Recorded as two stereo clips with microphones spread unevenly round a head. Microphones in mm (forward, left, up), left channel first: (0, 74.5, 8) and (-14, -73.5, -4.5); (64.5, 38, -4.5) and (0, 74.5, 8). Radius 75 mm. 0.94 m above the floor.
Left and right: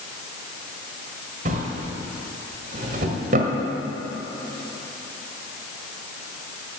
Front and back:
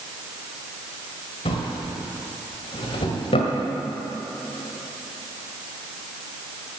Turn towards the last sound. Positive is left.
turn(degrees=-55)